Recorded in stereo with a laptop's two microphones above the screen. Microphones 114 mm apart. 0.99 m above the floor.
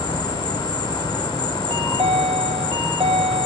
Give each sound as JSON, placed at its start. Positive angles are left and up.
{"t": 0.0, "sound": "an insect", "side_deg": 40, "distance_m": 0.8}
{"t": 1.7, "sound": "a chime", "side_deg": -50, "distance_m": 0.7}